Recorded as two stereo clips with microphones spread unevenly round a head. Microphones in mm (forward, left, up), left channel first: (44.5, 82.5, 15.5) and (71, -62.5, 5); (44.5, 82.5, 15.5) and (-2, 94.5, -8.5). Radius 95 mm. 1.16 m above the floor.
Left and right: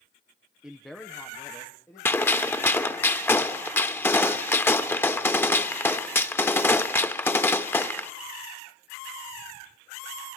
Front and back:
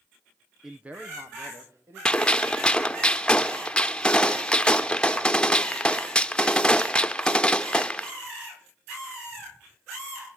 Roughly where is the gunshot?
Ahead left.